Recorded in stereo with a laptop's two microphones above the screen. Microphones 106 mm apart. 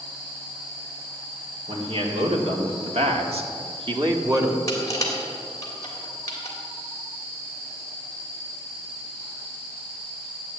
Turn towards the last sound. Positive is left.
turn(degrees=30)  # may be behind; listen again after turning